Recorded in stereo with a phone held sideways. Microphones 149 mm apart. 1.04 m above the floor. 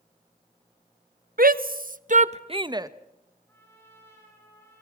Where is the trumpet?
15° left (ahead or behind), 9.5 m.